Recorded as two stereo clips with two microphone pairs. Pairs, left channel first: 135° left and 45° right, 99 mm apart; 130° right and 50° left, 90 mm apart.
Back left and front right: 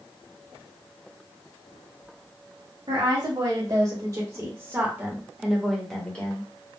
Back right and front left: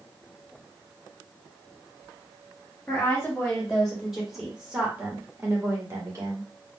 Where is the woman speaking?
60° right, 1.7 m; by 6.5 s 75° left, 1.4 m.